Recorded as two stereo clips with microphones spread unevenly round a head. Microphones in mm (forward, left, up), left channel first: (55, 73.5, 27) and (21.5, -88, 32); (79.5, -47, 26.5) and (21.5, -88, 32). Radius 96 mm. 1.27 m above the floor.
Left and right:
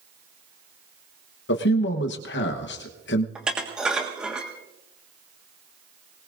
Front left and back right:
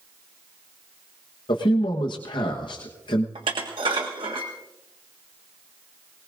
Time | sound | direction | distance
1.5 | a man speaking | 65° left | 1.1 m
3.4 | dishes clattering | 170° left | 1.5 m